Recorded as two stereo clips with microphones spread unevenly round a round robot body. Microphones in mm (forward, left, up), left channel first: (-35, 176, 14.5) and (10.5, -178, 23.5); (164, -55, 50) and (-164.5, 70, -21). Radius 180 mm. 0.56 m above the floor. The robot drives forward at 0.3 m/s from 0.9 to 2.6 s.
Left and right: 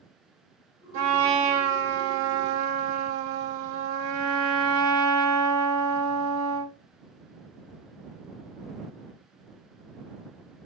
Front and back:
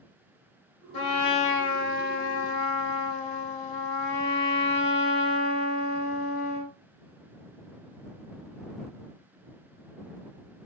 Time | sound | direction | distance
0.9 | a trumpet | 50° right | 1.5 m